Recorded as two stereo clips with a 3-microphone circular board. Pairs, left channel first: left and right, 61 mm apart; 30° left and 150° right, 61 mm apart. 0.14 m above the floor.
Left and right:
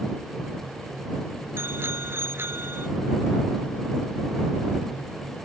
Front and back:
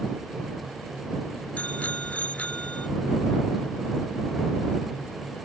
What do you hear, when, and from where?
1.6 s a bicycle bell: 40° right